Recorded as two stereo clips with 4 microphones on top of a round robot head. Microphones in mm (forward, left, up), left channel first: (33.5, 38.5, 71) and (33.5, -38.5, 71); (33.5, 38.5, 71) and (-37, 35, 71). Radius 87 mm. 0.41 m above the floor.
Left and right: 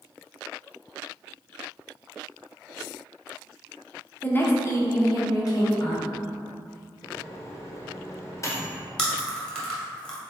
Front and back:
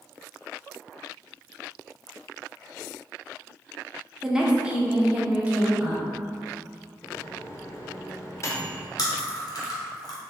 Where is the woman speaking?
110° left, 1.0 m; by 6.0 s 115° left, 1.9 m.